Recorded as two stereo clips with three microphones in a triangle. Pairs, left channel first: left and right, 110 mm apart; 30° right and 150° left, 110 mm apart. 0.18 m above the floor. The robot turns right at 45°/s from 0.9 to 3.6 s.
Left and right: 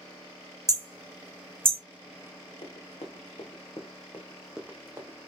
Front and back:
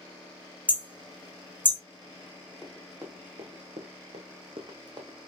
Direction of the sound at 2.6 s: 70° left.